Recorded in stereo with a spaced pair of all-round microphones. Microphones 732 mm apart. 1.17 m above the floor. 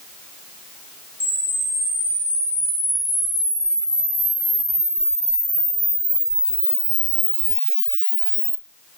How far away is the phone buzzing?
I don't hear a phone buzzing.